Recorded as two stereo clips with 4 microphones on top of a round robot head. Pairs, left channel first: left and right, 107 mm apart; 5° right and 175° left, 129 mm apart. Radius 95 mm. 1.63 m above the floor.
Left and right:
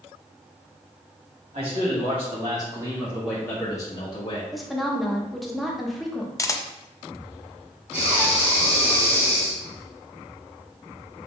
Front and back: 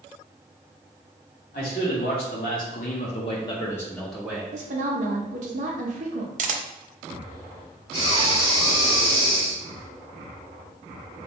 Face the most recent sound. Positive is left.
turn(degrees=-40)